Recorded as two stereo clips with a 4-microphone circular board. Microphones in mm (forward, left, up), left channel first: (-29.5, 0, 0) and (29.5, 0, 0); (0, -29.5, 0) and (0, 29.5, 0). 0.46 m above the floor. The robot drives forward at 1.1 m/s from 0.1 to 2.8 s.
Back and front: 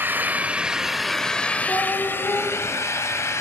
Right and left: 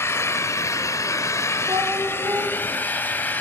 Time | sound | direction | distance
0.0 | an engine running | 55° right | 1.9 m
1.7 | a cat meowing | 115° left | 8.5 m